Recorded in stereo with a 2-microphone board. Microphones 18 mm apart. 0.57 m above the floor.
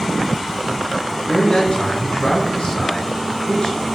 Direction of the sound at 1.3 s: 65° left (ahead or behind).